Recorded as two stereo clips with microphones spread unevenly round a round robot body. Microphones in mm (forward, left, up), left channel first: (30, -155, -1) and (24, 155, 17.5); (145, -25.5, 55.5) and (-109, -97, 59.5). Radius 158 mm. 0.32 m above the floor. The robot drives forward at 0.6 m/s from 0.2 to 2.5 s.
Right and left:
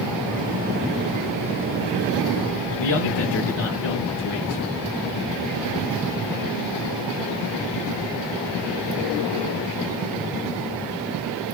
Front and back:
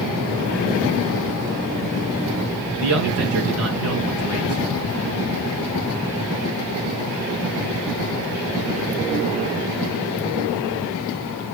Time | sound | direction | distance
2.8 | a man speaking | 140° right | 5 m